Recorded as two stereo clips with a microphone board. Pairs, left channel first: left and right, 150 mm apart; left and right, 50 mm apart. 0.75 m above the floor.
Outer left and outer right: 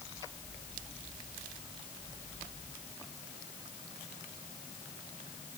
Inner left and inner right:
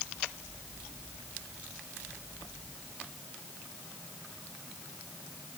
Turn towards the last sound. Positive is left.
No sound to turn to.